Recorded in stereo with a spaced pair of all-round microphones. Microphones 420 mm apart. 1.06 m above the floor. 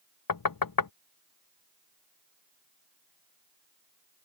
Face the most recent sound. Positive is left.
turn(degrees=55)  # may be behind; listen again after turning